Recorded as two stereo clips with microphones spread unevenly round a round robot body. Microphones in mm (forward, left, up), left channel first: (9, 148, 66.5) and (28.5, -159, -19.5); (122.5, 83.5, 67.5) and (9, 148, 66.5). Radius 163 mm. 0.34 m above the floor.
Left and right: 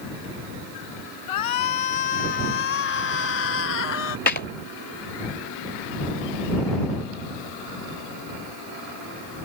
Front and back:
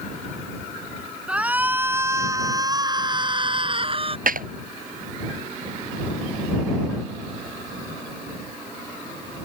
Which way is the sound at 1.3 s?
70° left.